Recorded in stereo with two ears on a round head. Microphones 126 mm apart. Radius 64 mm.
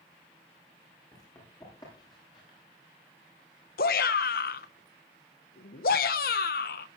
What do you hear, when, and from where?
1.1 s running footsteps: 25° left (ahead or behind), 9.5 m; by 2.6 s 30° left (ahead or behind), 8.5 m
3.8 s a shout: 70° left (ahead or behind), 1.0 m